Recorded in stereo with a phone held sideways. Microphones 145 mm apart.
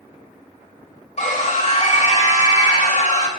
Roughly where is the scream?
Left.